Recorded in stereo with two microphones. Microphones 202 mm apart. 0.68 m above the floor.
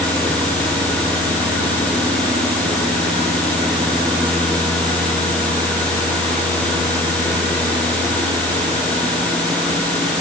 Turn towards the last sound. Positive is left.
No sound to turn to.